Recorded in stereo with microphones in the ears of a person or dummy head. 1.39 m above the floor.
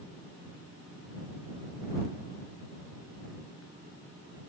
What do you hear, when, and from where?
Only background noise.